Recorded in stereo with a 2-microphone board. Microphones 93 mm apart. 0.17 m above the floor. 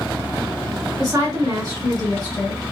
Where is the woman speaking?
45° right (ahead or behind), 2 m.